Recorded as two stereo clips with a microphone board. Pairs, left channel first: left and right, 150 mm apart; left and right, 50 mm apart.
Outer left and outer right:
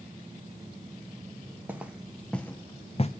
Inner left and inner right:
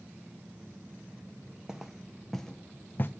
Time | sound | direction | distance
1.7 | footsteps | 10° right (ahead or behind) | 1.1 m